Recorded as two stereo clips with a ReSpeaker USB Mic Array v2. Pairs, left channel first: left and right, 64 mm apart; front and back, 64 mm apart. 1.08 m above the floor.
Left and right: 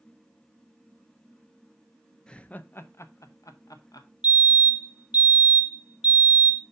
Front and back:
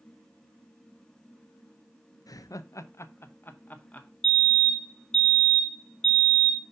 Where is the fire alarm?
65° right, 1.0 m.